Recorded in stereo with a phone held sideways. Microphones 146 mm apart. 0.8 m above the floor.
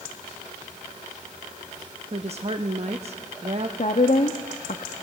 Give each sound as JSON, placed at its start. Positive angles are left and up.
{"t": 2.1, "sound": "a woman speaking", "side_deg": -45, "distance_m": 0.8}
{"t": 3.8, "sound": "a woman speaking", "side_deg": 55, "distance_m": 1.0}